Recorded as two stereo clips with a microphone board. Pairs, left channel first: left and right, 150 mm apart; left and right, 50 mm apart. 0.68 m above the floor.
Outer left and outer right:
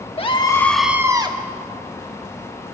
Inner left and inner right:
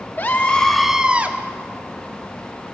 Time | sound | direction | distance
0.2 | a scream | 40° left (ahead or behind) | 1.1 m